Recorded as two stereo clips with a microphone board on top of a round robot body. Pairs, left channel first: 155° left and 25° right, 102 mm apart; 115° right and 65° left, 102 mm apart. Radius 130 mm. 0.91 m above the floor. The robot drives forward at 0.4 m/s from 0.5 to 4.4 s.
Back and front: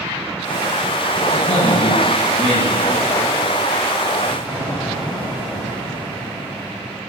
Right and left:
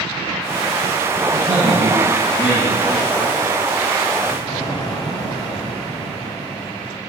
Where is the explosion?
165° right, 4.5 m.